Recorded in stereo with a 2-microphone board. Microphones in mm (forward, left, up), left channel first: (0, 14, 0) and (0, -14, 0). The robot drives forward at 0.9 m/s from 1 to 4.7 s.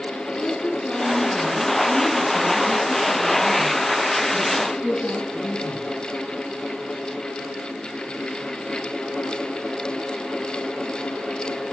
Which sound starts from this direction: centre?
A woman speaking, at 0.3 s.